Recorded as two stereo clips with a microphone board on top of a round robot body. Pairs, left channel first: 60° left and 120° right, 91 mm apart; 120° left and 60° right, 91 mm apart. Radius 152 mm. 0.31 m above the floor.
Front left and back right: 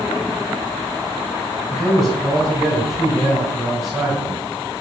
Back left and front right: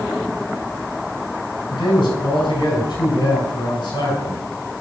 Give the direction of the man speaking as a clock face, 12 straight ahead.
7 o'clock.